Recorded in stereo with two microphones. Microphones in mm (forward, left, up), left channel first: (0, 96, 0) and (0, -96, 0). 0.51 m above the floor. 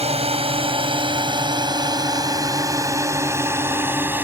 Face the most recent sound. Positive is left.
turn(degrees=-10)  # may be behind; listen again after turning